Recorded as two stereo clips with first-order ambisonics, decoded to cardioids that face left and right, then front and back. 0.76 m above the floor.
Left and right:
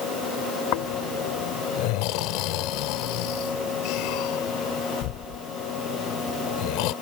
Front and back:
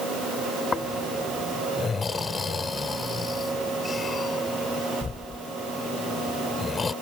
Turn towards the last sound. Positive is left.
turn(degrees=75)